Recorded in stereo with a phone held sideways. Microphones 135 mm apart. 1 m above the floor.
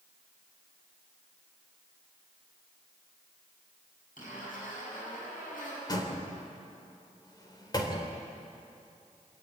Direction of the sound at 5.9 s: 30° left (ahead or behind).